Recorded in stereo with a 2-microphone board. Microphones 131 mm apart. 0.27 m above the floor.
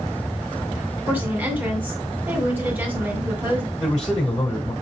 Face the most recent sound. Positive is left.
turn(degrees=5)  # may be behind; listen again after turning